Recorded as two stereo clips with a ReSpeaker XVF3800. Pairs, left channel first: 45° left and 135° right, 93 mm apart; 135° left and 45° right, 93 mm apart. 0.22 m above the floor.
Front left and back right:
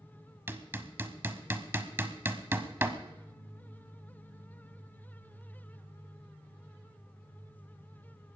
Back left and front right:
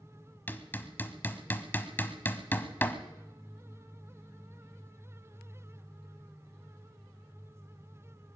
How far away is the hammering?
About 1.0 m.